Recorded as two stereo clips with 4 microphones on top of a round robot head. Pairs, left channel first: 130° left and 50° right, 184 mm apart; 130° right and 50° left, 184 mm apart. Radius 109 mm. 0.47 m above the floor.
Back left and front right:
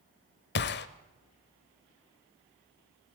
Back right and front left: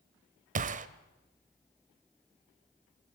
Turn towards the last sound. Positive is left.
turn(degrees=100)